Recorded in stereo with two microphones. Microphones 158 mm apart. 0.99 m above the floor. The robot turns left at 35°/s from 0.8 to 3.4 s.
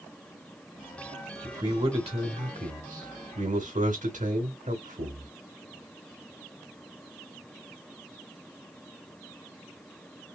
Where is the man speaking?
30° right, 1.3 m; by 5.3 s 95° right, 1.3 m.